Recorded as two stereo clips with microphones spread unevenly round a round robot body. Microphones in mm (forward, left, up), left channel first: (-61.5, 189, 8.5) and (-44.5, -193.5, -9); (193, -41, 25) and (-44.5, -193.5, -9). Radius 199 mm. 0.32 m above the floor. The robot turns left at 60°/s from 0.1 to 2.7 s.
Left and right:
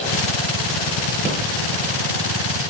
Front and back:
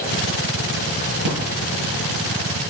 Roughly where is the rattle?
Behind.